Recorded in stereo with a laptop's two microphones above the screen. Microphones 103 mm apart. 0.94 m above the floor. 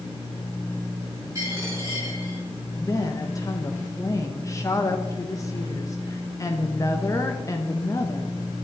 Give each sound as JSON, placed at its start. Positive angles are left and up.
{"t": 1.4, "sound": "a dropped coin", "side_deg": -30, "distance_m": 4.0}
{"t": 2.8, "sound": "a woman speaking", "side_deg": 30, "distance_m": 0.6}